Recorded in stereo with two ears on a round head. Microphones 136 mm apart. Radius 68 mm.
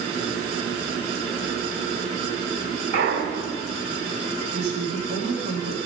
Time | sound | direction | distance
2.9 | a clunk | 80° right | 3 m
4.5 | a woman speaking | 45° right (ahead or behind) | 2.5 m